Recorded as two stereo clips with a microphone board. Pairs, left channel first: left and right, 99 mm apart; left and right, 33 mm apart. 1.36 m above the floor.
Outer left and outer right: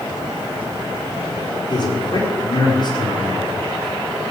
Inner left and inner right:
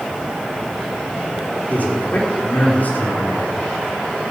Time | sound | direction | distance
1.7 | a man speaking | 50° left (ahead or behind) | 5 m